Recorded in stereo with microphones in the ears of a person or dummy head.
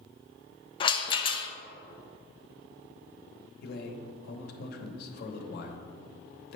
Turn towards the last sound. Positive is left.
turn(degrees=65)  # may be behind; listen again after turning